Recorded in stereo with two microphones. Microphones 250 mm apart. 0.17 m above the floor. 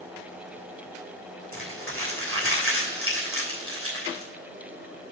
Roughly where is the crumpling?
Right.